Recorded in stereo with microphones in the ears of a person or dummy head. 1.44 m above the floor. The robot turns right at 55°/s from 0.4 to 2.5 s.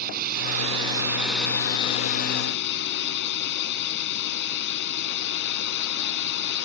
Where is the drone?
50° right; by 6.7 s 65° left.